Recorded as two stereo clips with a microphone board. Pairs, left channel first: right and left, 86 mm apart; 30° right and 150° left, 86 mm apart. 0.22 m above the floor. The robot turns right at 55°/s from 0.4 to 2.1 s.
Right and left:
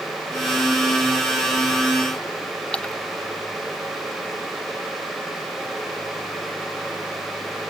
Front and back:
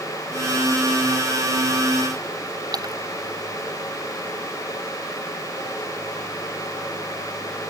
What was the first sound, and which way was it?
A splash, 170° right.